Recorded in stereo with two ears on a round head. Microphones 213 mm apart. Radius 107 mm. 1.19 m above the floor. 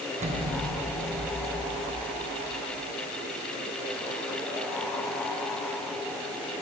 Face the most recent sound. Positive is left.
turn(degrees=-30)  # may be behind; listen again after turning